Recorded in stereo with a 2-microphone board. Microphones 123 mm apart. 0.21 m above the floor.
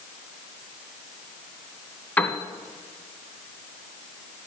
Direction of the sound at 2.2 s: 15° left (ahead or behind).